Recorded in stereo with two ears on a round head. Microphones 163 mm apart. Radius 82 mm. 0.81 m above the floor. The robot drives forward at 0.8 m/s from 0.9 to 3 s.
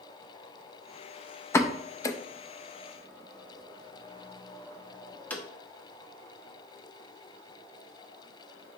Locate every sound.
1.5 s a pop: 15° left (ahead or behind), 0.5 m; by 5.4 s 10° left (ahead or behind), 1.0 m